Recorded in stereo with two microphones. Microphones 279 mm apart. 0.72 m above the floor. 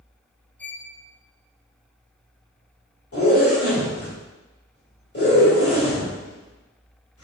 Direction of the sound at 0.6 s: 5° left (ahead or behind).